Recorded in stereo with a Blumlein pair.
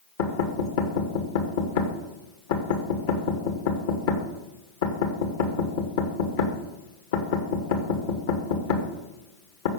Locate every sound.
0.2 s knocking: 55° left, 2.5 m